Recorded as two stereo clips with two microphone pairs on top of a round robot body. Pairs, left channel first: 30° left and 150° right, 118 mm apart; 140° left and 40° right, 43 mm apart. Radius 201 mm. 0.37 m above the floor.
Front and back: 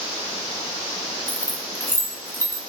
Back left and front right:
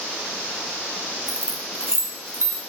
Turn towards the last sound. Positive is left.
turn(degrees=-40)